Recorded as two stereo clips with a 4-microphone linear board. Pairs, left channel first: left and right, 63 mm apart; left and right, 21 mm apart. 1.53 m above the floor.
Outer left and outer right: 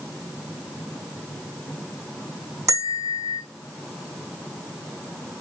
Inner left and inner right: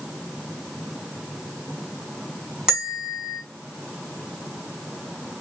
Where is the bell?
55° right (ahead or behind), 3.5 m.